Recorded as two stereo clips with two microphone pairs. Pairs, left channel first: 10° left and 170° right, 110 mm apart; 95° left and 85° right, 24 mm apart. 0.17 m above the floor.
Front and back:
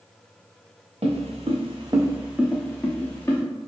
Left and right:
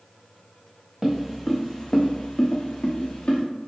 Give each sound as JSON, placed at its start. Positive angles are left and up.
{"t": 1.0, "sound": "footsteps", "azimuth_deg": -165, "distance_m": 0.8}